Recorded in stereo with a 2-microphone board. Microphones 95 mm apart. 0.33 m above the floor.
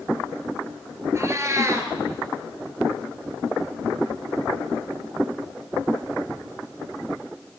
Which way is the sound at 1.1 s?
30° right (ahead or behind).